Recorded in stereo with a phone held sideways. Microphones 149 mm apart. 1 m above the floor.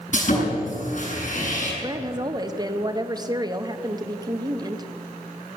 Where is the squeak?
No squeak in this recording.